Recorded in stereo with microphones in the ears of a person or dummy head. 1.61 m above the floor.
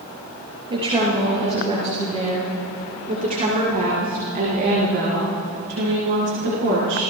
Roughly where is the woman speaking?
Right.